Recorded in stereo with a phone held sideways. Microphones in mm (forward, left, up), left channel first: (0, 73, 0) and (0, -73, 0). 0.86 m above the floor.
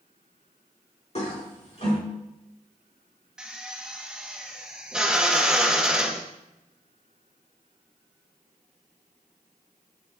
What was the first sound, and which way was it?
A toilet flushing, 50° left (ahead or behind).